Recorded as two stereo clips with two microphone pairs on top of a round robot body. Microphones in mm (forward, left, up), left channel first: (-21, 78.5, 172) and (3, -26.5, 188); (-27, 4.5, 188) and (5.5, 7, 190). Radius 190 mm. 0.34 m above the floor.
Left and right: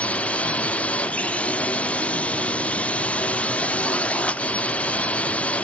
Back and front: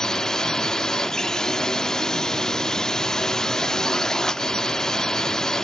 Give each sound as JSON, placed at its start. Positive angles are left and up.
{"t": 0.0, "sound": "a drone", "azimuth_deg": 145}